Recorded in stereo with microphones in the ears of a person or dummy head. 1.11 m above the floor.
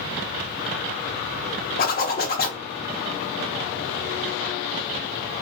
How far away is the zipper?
About 1.0 m.